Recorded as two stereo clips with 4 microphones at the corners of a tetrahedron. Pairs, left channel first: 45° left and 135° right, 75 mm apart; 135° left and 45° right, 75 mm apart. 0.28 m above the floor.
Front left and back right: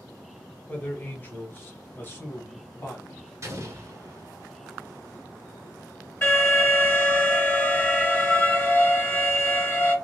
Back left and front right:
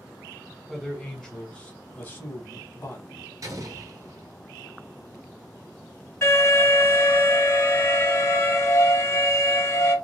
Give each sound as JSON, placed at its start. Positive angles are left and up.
{"t": 0.7, "sound": "a man speaking", "azimuth_deg": 30, "distance_m": 1.0}
{"t": 3.4, "sound": "an explosion", "azimuth_deg": -90, "distance_m": 0.9}
{"t": 6.2, "sound": "an alarm", "azimuth_deg": 95, "distance_m": 2.0}